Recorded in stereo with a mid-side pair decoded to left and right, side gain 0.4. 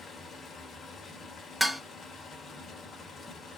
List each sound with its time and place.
0.0 s running water: 55° left, 1.2 m
1.6 s dishes clattering: 5° left, 0.6 m